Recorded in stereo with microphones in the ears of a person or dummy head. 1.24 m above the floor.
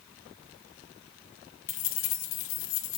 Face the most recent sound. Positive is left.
turn(degrees=75)  # may be behind; listen again after turning